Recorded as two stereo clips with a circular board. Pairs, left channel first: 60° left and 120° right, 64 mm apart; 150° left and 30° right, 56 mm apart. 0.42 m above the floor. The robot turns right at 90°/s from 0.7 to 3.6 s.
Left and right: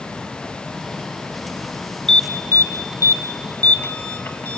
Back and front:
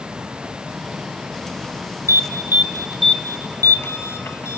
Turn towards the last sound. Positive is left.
turn(degrees=115)